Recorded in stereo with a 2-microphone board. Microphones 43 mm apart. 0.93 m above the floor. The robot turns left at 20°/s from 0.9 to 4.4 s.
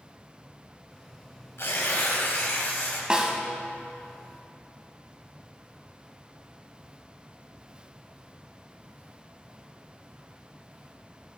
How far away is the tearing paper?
About 1.9 m.